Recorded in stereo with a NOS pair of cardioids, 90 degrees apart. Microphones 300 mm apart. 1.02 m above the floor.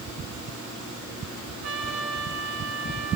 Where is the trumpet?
65° right, 3 m.